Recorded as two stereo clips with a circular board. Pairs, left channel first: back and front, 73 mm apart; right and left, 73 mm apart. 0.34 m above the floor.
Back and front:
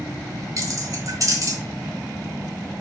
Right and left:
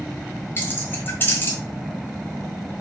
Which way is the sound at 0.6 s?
35° right.